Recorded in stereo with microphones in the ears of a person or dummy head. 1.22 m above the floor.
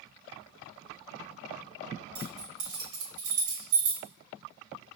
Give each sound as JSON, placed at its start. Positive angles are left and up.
{"t": 2.1, "sound": "keys jangling", "side_deg": -75, "distance_m": 1.4}